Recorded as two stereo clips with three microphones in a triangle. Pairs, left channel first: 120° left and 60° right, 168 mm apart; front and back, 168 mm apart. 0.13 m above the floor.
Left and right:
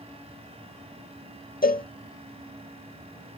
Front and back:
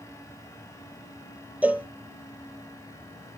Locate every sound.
1.6 s a cowbell: 100° left, 0.5 m